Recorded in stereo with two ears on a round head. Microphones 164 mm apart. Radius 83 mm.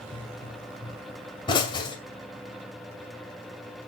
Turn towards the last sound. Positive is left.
turn(degrees=25)  # may be behind; listen again after turning